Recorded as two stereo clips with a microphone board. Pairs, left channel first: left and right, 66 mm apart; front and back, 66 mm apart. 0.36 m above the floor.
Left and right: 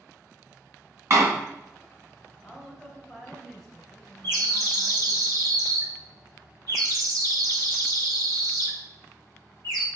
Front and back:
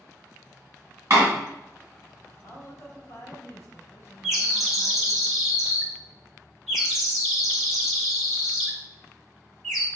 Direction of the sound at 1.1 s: 130° right.